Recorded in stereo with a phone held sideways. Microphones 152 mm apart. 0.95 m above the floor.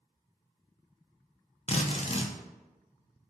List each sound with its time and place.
1.7 s a drill: 45° left (ahead or behind), 0.5 m